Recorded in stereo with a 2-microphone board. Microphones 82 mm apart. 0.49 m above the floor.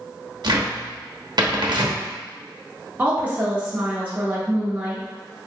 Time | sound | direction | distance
0.4 | a cupboard door | 60° right (ahead or behind) | 0.8 m
3.0 | a woman speaking | 20° right (ahead or behind) | 1.0 m